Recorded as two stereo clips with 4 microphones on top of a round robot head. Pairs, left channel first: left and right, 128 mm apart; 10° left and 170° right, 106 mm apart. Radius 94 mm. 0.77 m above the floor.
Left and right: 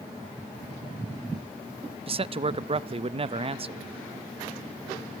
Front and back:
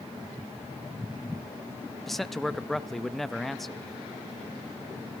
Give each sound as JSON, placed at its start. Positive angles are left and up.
{"t": 2.1, "sound": "a man speaking", "azimuth_deg": -80, "distance_m": 0.7}